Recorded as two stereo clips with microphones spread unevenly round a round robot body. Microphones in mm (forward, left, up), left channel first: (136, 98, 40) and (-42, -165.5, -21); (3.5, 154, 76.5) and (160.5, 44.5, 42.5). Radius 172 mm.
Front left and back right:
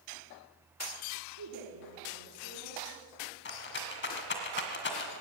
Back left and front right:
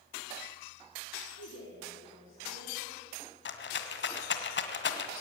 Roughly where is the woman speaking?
Behind.